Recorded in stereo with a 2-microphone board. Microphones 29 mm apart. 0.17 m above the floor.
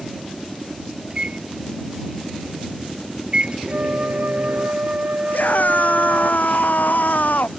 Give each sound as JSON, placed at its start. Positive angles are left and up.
{"t": 1.1, "sound": "a microwave", "side_deg": -40}
{"t": 3.7, "sound": "a flute", "side_deg": -65}
{"t": 5.3, "sound": "a scream", "side_deg": 80}